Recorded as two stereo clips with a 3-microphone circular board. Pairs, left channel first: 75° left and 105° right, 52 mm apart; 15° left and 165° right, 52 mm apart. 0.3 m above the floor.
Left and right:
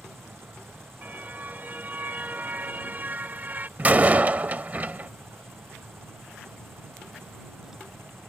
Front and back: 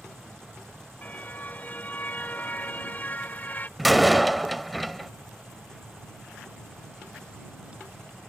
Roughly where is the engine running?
Ahead right.